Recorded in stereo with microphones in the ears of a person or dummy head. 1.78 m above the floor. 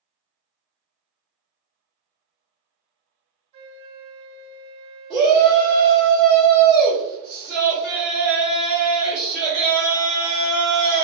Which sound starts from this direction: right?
A flute, at 3.5 s.